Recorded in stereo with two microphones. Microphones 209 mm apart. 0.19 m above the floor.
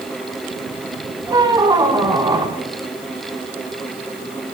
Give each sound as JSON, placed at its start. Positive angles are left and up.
{"t": 1.3, "sound": "a squeak", "side_deg": -20, "distance_m": 0.8}